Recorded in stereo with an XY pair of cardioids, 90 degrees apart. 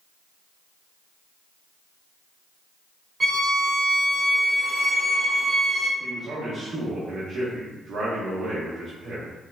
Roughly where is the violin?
Ahead right.